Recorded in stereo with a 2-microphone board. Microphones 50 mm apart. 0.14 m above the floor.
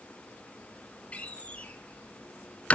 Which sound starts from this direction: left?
A door slam, at 1.1 s.